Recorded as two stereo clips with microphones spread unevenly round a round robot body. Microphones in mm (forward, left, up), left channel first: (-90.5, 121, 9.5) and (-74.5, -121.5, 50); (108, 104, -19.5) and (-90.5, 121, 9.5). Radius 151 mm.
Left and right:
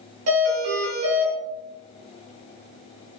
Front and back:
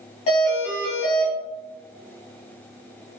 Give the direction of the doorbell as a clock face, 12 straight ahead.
2 o'clock.